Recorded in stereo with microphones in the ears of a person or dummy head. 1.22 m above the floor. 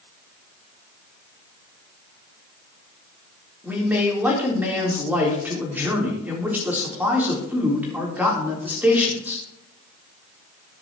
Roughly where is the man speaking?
Centre.